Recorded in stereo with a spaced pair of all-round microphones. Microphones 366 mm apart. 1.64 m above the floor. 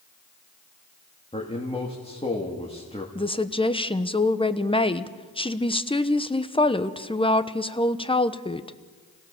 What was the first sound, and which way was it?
A man speaking, 15° left (ahead or behind).